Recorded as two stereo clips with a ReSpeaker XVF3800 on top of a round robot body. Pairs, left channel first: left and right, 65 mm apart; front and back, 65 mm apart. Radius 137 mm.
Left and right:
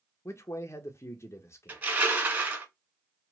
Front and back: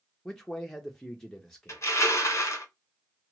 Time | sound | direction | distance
0.2 | a man speaking | 80° left | 0.6 m
1.7 | crushing | 35° right | 1.7 m